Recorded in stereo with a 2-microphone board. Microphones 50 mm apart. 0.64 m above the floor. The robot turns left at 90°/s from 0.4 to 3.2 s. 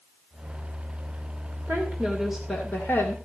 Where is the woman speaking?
115° right, 2.5 m; by 3.1 s 110° left, 2.5 m.